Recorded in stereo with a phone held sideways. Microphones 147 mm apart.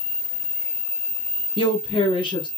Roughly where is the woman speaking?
Left.